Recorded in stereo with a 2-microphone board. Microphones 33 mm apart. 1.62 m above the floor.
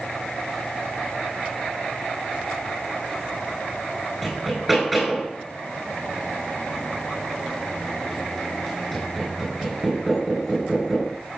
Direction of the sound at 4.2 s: Centre (ahead or behind).